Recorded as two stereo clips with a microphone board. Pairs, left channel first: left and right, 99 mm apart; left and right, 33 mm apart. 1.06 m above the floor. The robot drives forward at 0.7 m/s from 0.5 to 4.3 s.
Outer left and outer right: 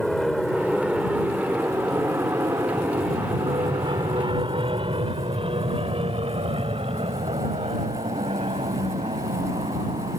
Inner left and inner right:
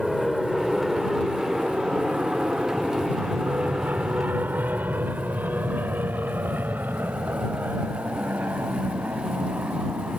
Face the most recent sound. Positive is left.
turn(degrees=-75)  # may be behind; listen again after turning